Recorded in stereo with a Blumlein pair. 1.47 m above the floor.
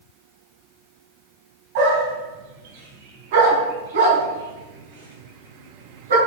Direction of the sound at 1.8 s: 50° right.